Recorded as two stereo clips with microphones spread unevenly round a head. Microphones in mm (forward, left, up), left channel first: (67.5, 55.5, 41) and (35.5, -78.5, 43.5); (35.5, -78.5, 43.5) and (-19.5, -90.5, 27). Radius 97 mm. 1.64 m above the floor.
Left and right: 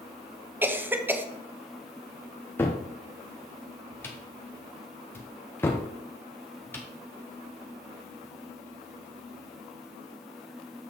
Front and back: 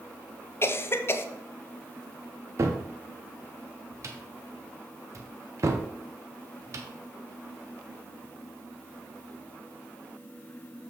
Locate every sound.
0.6 s a cough: 25° right, 0.8 m
2.6 s a cupboard door: 155° left, 0.5 m